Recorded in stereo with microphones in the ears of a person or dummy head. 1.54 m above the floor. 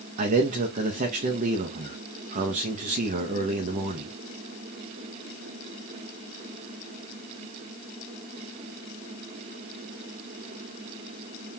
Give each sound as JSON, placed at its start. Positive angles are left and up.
{"t": 0.2, "sound": "a man speaking", "side_deg": -40, "distance_m": 0.9}